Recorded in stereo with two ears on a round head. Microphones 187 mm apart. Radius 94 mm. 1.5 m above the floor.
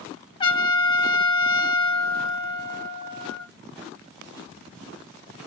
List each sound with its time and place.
0.4 s a trumpet: 25° left (ahead or behind), 1.3 m